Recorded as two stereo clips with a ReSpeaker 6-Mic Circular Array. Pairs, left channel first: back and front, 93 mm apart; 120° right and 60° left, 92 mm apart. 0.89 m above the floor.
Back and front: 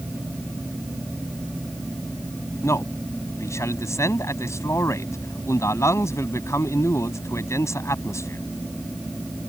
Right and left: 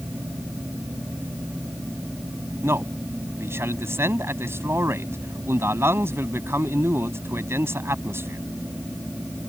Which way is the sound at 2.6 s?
125° left.